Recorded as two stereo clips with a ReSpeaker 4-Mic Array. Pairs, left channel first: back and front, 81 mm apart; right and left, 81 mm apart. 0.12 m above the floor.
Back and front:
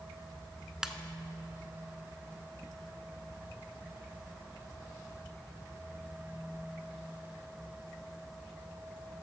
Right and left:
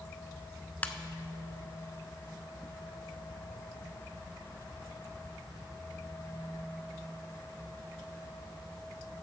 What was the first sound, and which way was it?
A ringtone, 70° right.